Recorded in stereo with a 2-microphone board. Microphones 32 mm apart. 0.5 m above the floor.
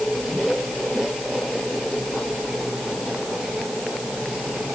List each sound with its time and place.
Only background noise.